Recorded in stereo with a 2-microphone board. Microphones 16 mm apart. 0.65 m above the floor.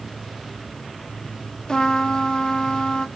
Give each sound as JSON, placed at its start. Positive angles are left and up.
{"t": 1.7, "sound": "a trumpet", "side_deg": 40, "distance_m": 0.9}